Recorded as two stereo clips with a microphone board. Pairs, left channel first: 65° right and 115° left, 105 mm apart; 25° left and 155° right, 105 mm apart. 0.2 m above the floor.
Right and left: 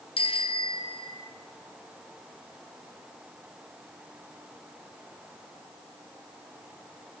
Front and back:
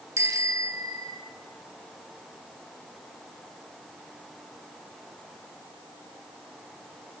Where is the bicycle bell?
95° right, 3 m; by 1.3 s 105° right, 3 m.